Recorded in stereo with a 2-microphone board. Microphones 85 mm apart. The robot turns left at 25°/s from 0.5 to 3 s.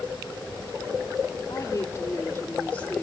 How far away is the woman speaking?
About 2 m.